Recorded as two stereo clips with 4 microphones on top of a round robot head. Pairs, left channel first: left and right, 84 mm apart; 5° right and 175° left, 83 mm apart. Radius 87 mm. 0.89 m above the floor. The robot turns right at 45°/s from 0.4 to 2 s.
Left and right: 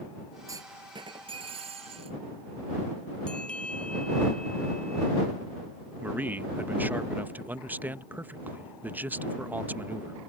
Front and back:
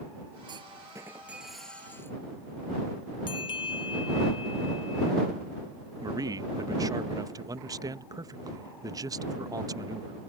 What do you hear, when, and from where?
0.5 s a clunk: 145° right; by 2.2 s 75° right
3.3 s a bell: 10° left
6.0 s a man speaking: 155° right